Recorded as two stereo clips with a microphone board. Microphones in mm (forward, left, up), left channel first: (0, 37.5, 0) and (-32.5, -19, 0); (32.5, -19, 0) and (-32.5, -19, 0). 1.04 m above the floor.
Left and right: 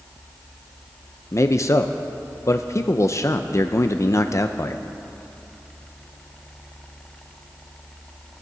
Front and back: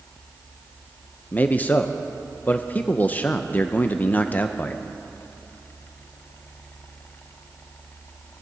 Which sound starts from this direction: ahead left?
A man speaking, at 1.3 s.